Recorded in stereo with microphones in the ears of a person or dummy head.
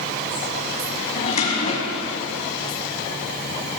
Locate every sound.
1.1 s a drawer: 45° left (ahead or behind), 2 m